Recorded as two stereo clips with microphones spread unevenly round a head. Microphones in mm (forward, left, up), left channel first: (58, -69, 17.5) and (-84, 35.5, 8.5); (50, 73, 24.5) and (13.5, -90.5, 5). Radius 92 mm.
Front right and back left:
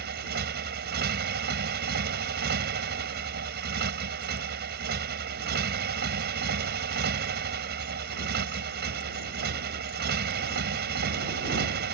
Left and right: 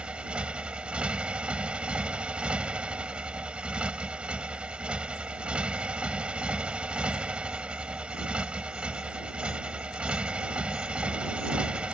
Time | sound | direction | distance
0.0 | a motorcycle | 170° left | ?